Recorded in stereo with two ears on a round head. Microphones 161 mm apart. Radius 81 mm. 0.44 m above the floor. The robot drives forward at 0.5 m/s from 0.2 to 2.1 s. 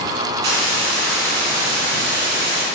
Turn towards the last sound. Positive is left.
turn(degrees=-75)  # may be behind; listen again after turning